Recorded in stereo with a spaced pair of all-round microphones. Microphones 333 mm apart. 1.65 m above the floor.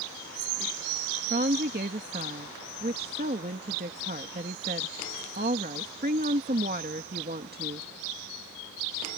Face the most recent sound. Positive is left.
turn(degrees=-30)  # may be behind; listen again after turning